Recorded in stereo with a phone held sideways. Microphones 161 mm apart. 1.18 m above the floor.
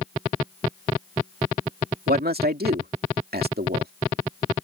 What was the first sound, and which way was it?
A man speaking, 90° right.